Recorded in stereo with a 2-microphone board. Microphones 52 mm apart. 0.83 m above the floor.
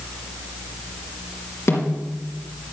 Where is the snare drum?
55° left (ahead or behind), 3.5 m.